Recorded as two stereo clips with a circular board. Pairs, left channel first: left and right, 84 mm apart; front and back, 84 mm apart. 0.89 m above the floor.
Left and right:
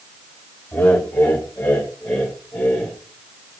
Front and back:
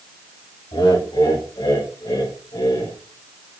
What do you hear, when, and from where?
0.7 s laughter: 15° left, 5 m; by 3.0 s 5° left, 4 m